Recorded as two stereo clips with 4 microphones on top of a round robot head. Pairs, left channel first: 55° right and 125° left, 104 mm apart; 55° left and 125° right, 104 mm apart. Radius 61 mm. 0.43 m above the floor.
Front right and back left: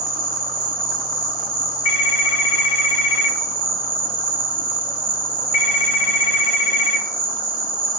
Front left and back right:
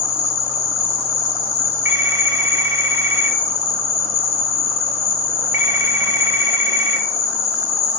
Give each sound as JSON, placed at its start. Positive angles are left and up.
{"t": 0.0, "sound": "an insect", "azimuth_deg": 80, "distance_m": 0.8}
{"t": 1.9, "sound": "a phone ringing", "azimuth_deg": -60, "distance_m": 1.2}